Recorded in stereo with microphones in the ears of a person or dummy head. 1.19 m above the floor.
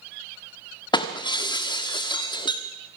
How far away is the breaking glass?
About 1.4 m.